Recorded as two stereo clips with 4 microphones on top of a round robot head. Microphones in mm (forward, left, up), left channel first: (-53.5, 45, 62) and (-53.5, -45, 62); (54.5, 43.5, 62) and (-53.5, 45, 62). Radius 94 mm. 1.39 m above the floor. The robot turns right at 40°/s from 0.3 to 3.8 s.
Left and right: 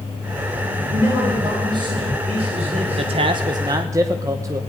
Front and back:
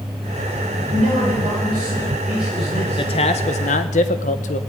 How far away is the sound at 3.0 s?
About 0.9 m.